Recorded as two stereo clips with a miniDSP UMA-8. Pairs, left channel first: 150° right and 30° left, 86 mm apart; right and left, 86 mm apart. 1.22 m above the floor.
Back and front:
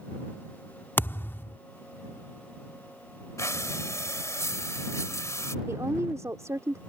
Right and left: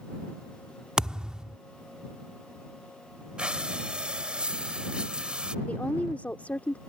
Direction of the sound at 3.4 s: 165° left.